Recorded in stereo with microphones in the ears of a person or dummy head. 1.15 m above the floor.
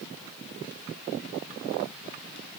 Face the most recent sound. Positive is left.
No sound to turn to.